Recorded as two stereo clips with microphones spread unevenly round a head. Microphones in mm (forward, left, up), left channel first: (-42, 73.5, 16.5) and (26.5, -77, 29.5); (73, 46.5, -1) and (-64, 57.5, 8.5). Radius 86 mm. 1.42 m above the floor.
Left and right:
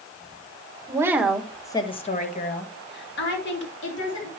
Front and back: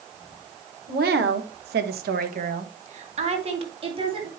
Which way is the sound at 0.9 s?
135° right.